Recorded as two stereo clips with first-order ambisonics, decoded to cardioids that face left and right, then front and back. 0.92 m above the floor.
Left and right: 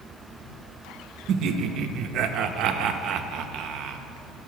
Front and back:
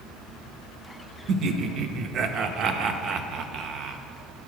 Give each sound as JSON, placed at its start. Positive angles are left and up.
{"t": 1.3, "sound": "laughter", "azimuth_deg": -130, "distance_m": 0.5}